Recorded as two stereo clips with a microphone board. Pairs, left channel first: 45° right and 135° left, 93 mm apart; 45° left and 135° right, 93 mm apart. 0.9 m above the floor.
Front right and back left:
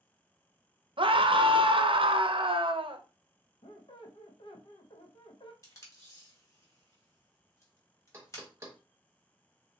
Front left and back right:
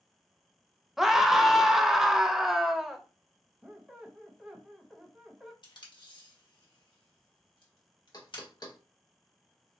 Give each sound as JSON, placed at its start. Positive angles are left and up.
{"t": 1.0, "sound": "a scream", "azimuth_deg": 140, "distance_m": 0.6}
{"t": 3.6, "sound": "a squeak", "azimuth_deg": -50, "distance_m": 0.8}
{"t": 5.6, "sound": "tape being pulled", "azimuth_deg": 10, "distance_m": 1.4}
{"t": 8.1, "sound": "knocking", "azimuth_deg": 80, "distance_m": 1.1}